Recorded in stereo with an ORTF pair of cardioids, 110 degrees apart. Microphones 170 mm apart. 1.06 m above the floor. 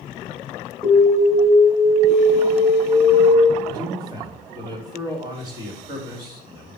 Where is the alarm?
10° left, 3.5 m.